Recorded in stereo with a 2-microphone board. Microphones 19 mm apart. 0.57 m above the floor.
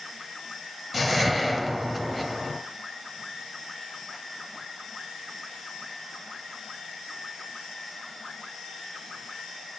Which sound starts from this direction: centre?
A whoosh, at 0.9 s.